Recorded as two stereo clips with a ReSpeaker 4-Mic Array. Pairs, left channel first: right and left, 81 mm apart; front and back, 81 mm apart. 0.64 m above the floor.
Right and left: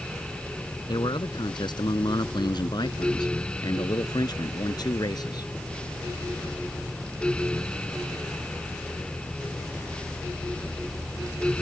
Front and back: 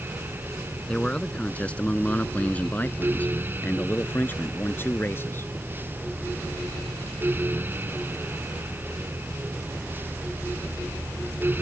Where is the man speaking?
75° right; by 5.5 s 60° right.